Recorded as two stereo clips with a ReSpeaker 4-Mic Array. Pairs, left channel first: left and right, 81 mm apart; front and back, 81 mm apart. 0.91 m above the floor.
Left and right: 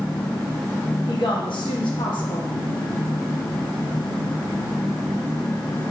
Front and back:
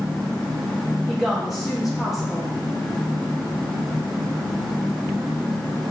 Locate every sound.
1.1 s a woman speaking: 90° left, 0.9 m